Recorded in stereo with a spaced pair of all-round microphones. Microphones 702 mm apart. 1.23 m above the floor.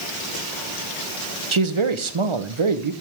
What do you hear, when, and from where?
1.5 s a man speaking: 45° right (ahead or behind), 0.9 m